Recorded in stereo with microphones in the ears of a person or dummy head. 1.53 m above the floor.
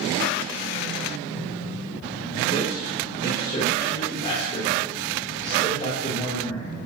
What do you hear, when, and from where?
2.5 s a man speaking: 45° left (ahead or behind), 1.4 m